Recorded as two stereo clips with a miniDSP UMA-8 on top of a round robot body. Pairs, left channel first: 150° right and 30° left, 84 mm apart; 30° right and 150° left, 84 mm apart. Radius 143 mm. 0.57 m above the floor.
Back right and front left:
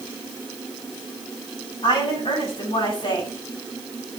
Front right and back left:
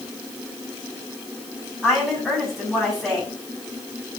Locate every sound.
1.8 s a woman speaking: 125° right, 7 m